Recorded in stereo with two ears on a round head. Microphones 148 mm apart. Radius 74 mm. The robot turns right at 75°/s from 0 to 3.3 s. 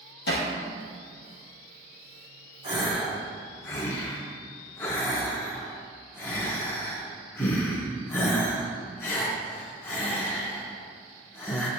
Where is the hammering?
75° left (ahead or behind), 3 m; by 0.5 s 55° left (ahead or behind), 3 m.